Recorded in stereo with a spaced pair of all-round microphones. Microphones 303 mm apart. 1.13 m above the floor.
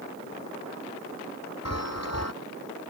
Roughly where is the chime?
Left.